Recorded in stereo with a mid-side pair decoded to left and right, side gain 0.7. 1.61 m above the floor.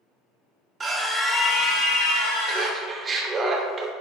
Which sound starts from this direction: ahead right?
Laughter, at 2.5 s.